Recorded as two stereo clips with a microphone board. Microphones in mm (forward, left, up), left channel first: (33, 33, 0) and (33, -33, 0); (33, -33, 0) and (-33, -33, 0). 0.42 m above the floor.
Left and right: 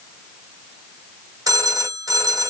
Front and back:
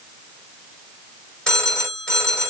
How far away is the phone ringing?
About 1.6 m.